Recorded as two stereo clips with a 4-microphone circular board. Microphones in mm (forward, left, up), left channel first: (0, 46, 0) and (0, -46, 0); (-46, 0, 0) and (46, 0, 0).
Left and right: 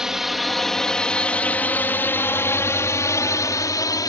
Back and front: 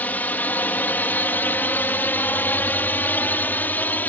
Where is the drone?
160° right; by 4.1 s 115° left.